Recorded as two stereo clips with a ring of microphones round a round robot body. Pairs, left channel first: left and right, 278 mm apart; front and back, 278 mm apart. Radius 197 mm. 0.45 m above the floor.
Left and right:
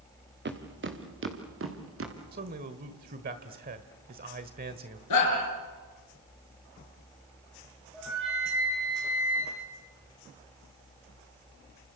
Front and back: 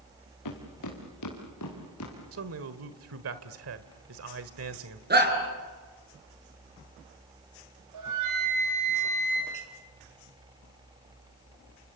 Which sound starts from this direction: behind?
A flute, at 7.9 s.